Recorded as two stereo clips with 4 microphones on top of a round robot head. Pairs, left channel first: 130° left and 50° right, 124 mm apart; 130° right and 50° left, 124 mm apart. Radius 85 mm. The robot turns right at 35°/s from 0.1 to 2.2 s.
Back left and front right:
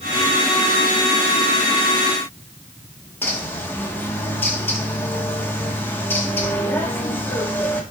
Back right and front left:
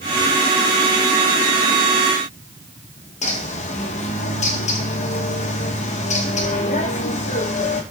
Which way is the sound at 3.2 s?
155° right.